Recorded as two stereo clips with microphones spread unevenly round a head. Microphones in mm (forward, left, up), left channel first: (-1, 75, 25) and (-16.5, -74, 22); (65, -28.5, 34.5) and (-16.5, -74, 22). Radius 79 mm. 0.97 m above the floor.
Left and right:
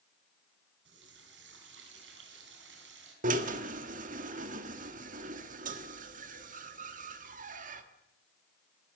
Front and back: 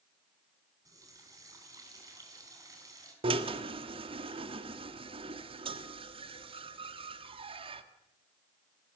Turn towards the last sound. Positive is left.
turn(degrees=-130)